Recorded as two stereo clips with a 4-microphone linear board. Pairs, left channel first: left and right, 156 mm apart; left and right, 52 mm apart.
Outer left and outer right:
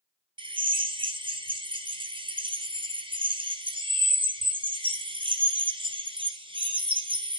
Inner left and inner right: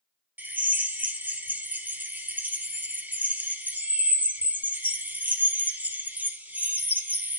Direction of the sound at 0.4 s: 35° right (ahead or behind).